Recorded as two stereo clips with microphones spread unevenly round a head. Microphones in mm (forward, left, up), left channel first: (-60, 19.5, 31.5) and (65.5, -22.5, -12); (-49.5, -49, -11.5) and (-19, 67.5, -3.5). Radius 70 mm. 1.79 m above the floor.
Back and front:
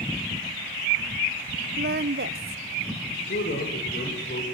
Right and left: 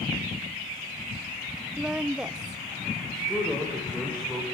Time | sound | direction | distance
1.8 | a woman speaking | 5° right | 0.9 m
3.1 | a man speaking | 170° left | 7.5 m